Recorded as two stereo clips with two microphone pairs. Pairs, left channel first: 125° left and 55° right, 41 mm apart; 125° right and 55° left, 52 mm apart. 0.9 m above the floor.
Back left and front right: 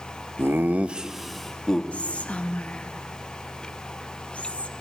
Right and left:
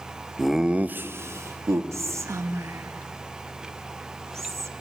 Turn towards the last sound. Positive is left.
turn(degrees=70)